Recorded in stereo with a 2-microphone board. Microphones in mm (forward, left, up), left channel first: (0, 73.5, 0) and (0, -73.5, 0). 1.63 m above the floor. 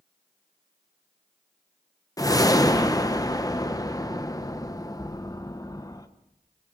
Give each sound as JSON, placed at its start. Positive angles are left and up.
{"t": 2.2, "sound": "a whoosh", "side_deg": 25, "distance_m": 1.0}